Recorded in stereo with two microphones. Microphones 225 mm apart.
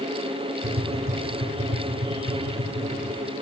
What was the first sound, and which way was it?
Tapping, 70° right (ahead or behind).